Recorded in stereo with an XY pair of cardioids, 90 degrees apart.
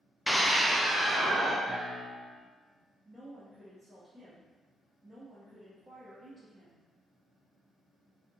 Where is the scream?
5° left, 0.6 m; by 1.6 s 30° right, 1.6 m.